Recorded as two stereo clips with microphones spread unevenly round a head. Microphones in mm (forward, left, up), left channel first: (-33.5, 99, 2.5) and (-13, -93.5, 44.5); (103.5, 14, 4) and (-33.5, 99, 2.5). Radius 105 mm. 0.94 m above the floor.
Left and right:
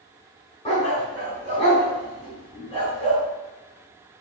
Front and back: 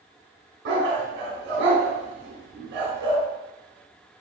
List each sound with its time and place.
0.7 s a dog barking: 160° left, 4 m